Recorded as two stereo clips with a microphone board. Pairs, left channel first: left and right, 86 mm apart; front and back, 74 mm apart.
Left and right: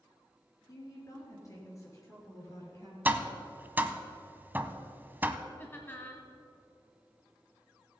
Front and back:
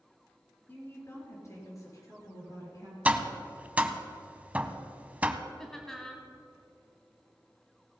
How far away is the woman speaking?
About 3 m.